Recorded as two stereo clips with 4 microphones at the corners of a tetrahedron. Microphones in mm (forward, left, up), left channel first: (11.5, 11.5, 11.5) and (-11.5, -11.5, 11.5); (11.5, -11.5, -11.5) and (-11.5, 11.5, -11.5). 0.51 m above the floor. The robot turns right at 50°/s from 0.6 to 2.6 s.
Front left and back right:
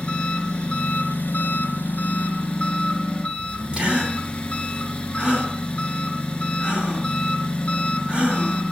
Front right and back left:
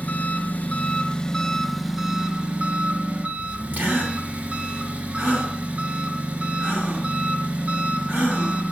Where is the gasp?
170° left, 2.5 m.